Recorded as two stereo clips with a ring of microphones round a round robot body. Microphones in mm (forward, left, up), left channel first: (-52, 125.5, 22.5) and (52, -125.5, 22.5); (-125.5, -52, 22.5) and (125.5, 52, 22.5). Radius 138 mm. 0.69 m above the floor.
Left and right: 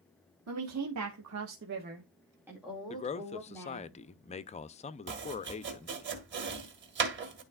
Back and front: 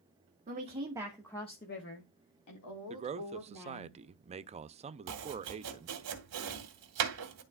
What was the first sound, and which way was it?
A woman speaking, 40° right.